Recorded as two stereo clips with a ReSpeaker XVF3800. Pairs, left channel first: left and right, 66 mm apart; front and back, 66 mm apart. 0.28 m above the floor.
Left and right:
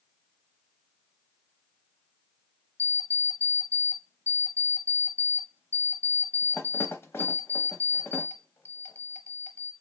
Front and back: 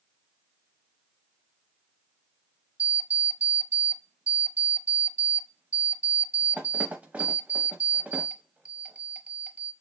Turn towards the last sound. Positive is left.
turn(degrees=120)